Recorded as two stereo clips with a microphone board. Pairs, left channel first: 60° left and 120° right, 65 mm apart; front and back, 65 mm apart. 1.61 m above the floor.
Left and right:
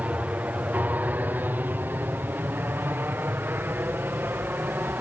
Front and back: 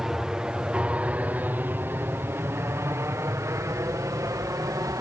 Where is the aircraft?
110° right; by 5.0 s 175° right.